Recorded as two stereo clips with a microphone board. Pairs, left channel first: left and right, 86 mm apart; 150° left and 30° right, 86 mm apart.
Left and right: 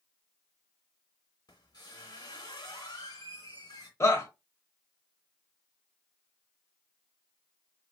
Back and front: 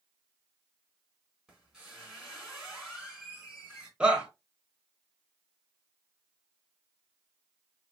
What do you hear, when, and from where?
1.5 s a squeak: 55° left, 2 m
4.0 s a shout: 45° left, 1.2 m